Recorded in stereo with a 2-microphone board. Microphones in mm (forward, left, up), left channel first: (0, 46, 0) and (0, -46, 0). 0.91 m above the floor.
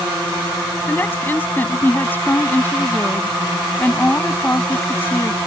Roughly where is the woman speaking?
Left.